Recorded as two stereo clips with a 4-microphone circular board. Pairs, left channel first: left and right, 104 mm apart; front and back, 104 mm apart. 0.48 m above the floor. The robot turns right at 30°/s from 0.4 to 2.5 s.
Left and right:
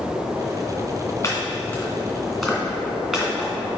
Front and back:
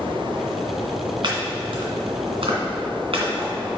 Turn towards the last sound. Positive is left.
turn(degrees=-170)